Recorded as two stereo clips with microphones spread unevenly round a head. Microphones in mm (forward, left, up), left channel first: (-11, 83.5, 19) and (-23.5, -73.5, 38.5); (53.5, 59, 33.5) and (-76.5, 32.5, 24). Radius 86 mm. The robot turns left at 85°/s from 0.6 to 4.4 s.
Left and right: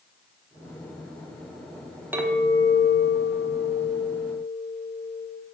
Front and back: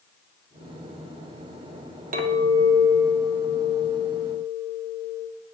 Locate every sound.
2.1 s a clink: 175° right, 0.9 m; by 5.3 s 5° right, 0.9 m